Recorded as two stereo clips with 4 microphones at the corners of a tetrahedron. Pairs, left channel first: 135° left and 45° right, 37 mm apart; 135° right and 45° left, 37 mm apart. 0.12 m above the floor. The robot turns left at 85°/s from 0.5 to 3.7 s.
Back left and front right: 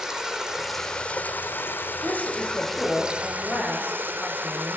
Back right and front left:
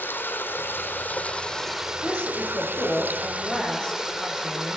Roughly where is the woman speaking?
Ahead right.